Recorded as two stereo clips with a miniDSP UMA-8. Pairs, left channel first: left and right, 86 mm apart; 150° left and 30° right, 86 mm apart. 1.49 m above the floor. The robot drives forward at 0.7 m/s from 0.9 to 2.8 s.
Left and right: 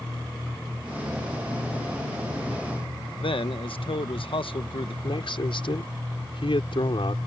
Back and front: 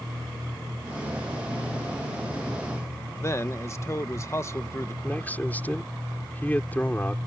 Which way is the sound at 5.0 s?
80° left.